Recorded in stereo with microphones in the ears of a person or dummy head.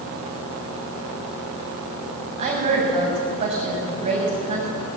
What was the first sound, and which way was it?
A woman speaking, 35° right (ahead or behind).